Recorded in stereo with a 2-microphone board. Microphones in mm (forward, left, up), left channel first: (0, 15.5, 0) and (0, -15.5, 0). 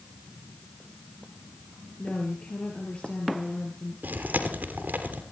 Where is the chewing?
75° right (ahead or behind), 3 m.